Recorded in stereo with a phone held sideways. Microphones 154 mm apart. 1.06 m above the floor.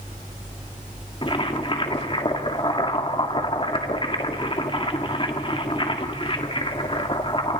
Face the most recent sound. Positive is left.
turn(degrees=35)  # may be behind; listen again after turning